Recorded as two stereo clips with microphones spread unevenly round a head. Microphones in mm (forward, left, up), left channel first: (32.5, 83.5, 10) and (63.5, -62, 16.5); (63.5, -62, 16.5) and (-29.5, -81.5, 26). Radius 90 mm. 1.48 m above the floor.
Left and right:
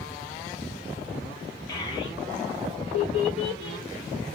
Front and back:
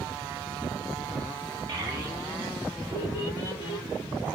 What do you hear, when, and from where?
1.7 s a child speaking: 165° left, 0.8 m; by 3.9 s 60° left, 1.0 m